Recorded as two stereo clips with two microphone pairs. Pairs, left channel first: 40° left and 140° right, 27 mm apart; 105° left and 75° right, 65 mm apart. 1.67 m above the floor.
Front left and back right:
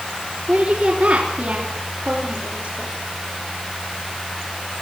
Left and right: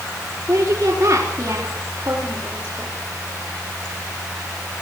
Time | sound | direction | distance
0.5 | a woman speaking | 120° right | 4 m